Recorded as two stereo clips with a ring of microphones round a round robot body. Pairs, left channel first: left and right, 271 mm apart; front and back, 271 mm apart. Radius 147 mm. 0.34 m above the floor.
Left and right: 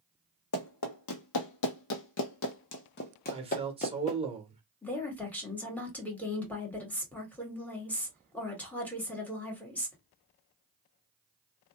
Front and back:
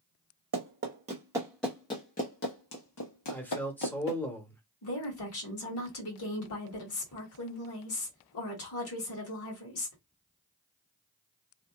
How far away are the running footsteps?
About 0.9 m.